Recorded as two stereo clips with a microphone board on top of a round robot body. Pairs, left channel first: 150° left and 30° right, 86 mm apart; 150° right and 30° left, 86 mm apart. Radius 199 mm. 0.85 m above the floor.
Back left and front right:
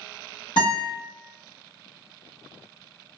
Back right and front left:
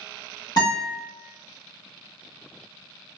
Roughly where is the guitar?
Behind.